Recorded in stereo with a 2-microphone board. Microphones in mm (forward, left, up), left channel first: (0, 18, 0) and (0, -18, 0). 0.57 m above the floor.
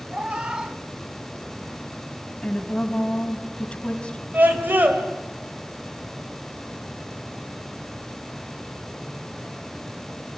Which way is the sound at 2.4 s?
25° left (ahead or behind).